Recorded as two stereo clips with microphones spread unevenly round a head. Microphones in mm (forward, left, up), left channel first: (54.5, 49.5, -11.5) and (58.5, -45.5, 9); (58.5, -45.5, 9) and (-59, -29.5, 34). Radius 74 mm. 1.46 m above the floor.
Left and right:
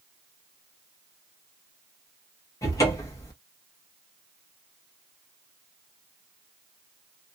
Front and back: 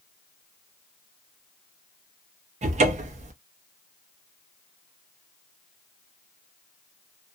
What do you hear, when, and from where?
2.6 s a cupboard door: 140° left, 0.6 m